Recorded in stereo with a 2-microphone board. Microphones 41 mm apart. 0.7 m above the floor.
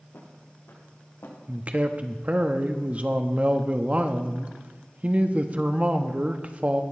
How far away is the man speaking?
About 0.9 m.